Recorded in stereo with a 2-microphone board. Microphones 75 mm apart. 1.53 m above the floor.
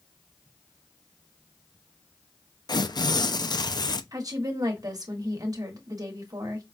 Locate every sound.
2.7 s tearing paper: 65° left (ahead or behind), 0.5 m
4.1 s a woman speaking: 55° right (ahead or behind), 1.5 m